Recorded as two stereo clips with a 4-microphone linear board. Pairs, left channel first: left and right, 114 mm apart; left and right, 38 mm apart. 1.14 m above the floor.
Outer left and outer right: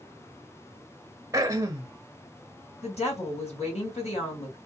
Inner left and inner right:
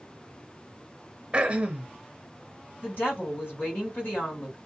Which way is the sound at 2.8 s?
65° left (ahead or behind).